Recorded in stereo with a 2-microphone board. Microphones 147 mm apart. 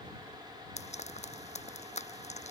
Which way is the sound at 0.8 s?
50° left (ahead or behind).